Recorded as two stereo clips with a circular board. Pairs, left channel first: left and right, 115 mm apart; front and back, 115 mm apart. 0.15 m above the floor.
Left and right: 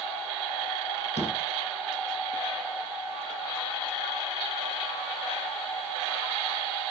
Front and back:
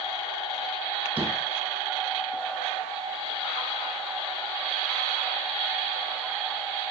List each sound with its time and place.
1.2 s a door slam: 105° left, 5 m